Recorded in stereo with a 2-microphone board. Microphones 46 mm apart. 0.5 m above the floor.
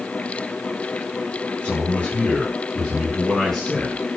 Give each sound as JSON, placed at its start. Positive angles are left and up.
{"t": 1.6, "sound": "a man speaking", "side_deg": 25, "distance_m": 7.5}